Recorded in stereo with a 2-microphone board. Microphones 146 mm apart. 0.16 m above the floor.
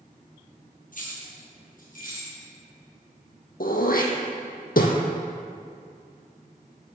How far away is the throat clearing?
About 1.3 m.